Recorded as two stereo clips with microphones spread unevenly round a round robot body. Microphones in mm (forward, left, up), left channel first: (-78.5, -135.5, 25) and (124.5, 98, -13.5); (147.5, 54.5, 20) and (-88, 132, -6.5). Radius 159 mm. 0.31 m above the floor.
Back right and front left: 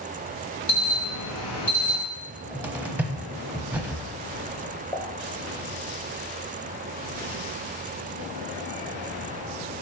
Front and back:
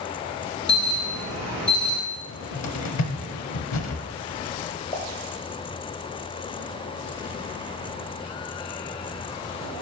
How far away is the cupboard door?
About 0.8 m.